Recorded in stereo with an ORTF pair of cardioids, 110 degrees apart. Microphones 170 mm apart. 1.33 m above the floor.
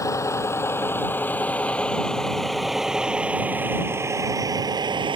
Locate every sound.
0.0 s a vehicle: 20° left; by 5.2 s 30° right